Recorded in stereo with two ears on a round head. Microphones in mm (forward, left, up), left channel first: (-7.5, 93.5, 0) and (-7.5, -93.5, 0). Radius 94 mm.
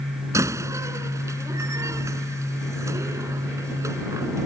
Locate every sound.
0.3 s a door slam: 15° right (ahead or behind)